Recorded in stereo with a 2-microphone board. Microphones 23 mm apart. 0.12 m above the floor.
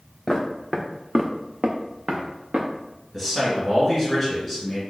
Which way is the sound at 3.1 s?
Centre (ahead or behind).